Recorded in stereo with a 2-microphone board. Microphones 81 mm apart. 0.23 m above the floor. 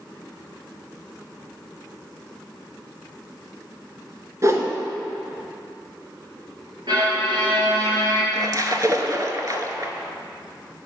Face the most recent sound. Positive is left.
turn(degrees=-45)  # may be behind; listen again after turning